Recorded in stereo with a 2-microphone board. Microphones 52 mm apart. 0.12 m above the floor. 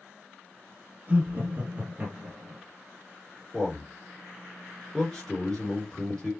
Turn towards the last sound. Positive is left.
turn(degrees=10)  # may be behind; listen again after turning